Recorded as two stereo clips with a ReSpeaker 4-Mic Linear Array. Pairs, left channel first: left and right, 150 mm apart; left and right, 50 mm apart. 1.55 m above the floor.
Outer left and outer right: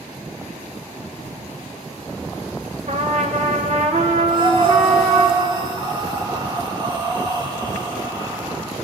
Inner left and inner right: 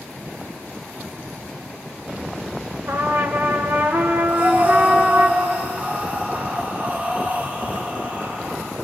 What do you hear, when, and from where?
2.9 s a trumpet: 55° right (ahead or behind), 1.6 m
4.3 s breathing: 30° right (ahead or behind), 2 m